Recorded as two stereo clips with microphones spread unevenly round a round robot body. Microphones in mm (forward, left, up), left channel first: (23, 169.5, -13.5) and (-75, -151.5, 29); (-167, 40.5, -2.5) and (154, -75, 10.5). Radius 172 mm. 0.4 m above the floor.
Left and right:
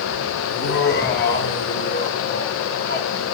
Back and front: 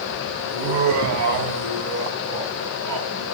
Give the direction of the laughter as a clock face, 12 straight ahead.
11 o'clock.